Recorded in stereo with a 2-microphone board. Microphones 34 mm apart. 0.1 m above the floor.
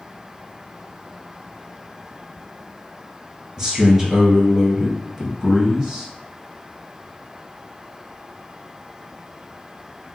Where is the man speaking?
15° right (ahead or behind), 1.4 m.